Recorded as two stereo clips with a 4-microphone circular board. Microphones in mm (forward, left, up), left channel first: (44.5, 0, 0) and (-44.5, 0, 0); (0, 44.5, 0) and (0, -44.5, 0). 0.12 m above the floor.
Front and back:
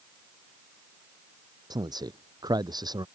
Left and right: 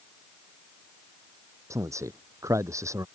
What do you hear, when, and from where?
1.7 s a man speaking: 140° right